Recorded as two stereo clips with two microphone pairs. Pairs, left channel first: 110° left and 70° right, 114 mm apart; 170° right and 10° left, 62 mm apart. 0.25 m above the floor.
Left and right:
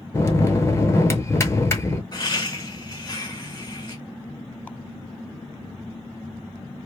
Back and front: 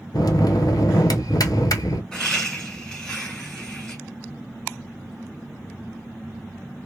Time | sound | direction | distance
0.1 | a bell | 175° left | 0.6 m
2.1 | laughter | 110° left | 1.5 m